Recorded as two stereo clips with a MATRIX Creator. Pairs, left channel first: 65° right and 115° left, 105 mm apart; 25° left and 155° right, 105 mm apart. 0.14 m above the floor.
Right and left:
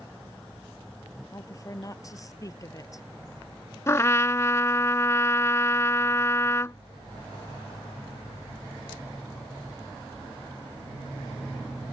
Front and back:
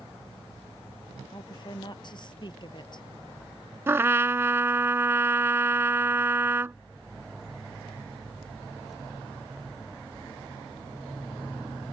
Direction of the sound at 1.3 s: 15° right.